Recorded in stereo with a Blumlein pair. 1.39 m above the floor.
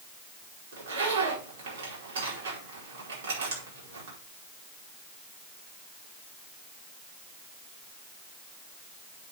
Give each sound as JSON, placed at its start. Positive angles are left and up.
{"t": 0.7, "sound": "a zipper", "azimuth_deg": -60, "distance_m": 5.0}